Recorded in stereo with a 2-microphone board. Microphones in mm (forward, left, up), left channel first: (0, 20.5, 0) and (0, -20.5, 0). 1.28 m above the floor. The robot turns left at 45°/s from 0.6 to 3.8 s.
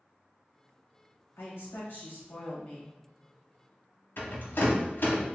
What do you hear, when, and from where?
1.4 s a woman speaking: 100° left, 1.1 m; by 2.9 s 25° left, 1.1 m
4.2 s a rattle: 60° left (ahead or behind), 0.8 m